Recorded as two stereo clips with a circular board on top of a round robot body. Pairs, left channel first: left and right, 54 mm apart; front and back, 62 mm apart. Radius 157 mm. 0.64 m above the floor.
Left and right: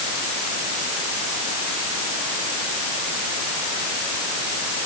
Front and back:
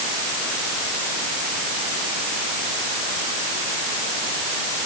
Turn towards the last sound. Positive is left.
No sound to turn to.